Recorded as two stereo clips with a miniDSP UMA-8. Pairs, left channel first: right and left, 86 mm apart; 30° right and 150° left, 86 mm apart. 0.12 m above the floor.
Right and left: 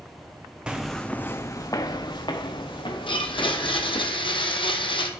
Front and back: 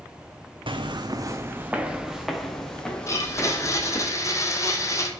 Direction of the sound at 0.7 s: 170° left.